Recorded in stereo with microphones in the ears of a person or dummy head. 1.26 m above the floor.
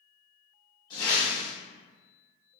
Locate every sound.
0.9 s a whoosh: 35° left (ahead or behind), 1.4 m